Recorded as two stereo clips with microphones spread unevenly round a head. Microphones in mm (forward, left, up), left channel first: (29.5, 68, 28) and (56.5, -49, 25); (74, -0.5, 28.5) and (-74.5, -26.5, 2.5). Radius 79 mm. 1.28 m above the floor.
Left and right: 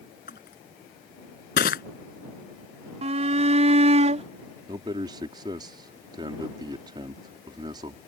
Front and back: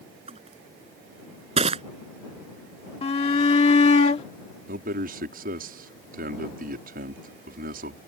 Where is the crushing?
130° left.